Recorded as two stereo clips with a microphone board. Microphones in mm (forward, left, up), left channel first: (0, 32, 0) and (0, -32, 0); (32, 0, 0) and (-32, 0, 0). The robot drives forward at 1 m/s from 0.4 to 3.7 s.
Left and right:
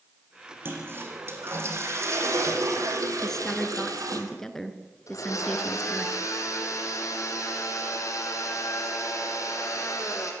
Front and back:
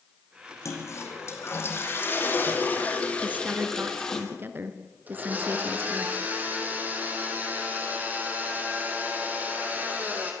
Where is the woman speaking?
160° left, 1.5 m; by 6.1 s 170° left, 1.7 m.